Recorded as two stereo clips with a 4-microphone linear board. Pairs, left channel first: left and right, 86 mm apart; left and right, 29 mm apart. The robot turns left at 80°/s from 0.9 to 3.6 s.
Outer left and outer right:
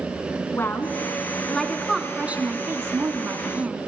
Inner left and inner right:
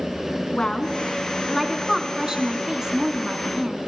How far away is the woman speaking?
About 1.4 m.